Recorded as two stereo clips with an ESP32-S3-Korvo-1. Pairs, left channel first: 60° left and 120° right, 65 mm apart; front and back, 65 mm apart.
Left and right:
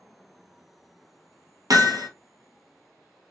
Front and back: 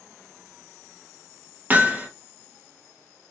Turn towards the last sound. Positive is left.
turn(degrees=-115)